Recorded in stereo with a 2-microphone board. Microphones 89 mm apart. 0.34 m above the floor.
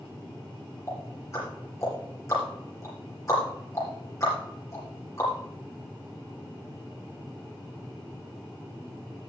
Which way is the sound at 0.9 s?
35° left (ahead or behind).